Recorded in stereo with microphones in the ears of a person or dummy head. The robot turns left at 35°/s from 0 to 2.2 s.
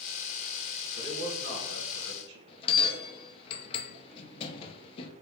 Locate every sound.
1.0 s a man speaking: 35° right, 1.3 m; by 2.4 s 75° right, 1.3 m
2.5 s a bell: 30° left (ahead or behind), 0.6 m